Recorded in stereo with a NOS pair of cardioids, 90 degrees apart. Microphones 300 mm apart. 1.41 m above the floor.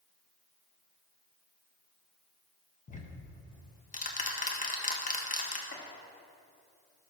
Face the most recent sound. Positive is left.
turn(degrees=40)